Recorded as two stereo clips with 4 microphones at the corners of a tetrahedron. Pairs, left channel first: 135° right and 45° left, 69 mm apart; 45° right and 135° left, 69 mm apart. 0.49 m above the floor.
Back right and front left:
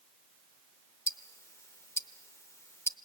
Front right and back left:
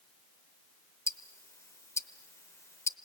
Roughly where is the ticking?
Right.